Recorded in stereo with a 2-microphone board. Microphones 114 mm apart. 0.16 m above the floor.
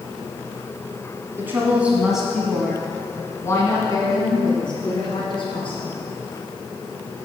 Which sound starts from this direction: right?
A woman speaking, at 1.4 s.